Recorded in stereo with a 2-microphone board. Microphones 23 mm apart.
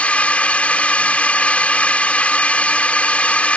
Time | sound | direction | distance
0.0 | a drone | 80° left | ?